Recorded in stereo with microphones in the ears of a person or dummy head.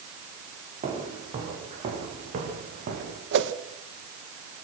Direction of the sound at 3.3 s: 70° right (ahead or behind).